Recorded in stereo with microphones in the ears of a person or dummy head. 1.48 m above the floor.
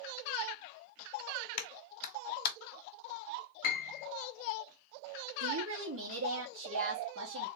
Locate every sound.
1.6 s a clap: 55° left (ahead or behind), 1.3 m
3.6 s a piano: 50° left (ahead or behind), 0.9 m
5.4 s a woman speaking: 75° right (ahead or behind), 1.1 m